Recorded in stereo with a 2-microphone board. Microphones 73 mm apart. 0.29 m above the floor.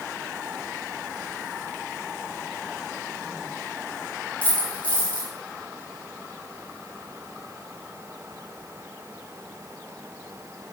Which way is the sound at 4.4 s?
20° left (ahead or behind).